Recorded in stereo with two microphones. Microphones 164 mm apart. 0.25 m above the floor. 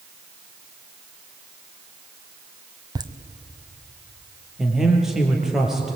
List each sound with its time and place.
3.0 s laughter: 25° right (ahead or behind), 1.5 m
4.6 s a man speaking: 5° right (ahead or behind), 5 m